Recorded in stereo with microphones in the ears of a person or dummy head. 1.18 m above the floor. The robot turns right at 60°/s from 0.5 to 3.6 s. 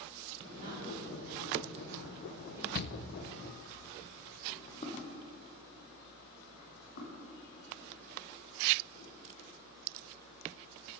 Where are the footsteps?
30° left (ahead or behind), 3 m; by 9.1 s 65° left (ahead or behind), 5.5 m.